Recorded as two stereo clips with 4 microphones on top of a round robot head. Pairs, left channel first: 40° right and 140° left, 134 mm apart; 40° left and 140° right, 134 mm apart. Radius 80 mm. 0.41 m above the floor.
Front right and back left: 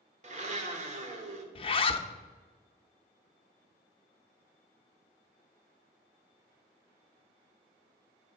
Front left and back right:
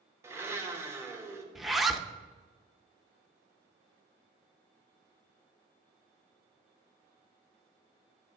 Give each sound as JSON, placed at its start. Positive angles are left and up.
{"t": 0.2, "sound": "a blender", "azimuth_deg": 150, "distance_m": 1.0}
{"t": 1.6, "sound": "a zipper", "azimuth_deg": -50, "distance_m": 0.6}